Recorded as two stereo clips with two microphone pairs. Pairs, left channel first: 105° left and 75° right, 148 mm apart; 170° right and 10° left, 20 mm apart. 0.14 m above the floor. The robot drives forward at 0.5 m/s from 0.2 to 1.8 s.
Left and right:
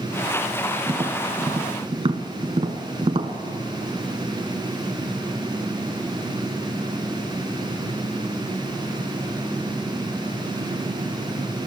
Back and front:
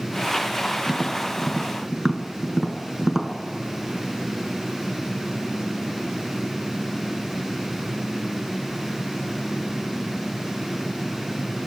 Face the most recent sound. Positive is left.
turn(degrees=-55)